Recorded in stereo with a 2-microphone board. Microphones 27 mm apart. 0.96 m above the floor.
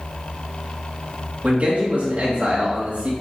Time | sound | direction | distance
1.4 | a man speaking | 55° right (ahead or behind) | 1.5 m